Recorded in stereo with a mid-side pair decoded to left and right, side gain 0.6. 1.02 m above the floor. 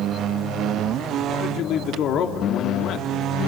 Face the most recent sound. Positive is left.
turn(degrees=60)